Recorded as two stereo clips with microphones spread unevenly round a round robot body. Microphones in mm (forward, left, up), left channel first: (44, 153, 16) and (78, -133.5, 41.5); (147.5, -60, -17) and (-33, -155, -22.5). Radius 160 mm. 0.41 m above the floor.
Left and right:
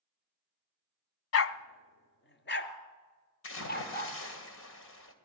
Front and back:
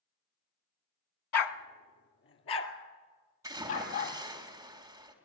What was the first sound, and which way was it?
A dog barking, 55° left.